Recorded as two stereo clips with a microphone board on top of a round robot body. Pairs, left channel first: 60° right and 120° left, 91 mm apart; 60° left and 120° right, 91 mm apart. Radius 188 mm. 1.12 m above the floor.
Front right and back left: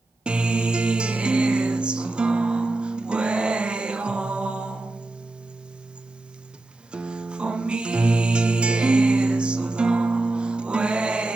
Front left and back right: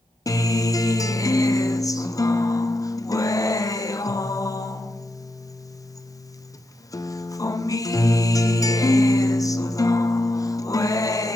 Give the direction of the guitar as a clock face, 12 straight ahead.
10 o'clock.